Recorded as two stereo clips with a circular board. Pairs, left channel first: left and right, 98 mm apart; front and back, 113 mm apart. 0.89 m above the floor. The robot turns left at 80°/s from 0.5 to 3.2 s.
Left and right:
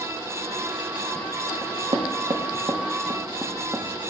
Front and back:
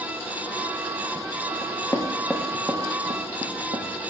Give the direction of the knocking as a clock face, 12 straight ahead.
1 o'clock.